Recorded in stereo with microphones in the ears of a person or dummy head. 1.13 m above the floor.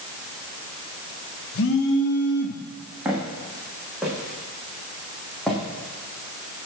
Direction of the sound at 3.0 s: 5° right (ahead or behind).